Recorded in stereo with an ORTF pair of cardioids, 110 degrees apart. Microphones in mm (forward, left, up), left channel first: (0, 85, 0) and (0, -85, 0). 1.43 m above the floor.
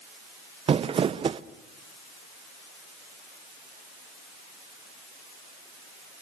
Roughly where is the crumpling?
Ahead right.